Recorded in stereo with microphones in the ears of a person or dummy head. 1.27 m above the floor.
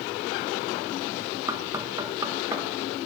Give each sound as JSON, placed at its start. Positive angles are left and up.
{"t": 1.5, "sound": "knocking", "side_deg": -20, "distance_m": 1.2}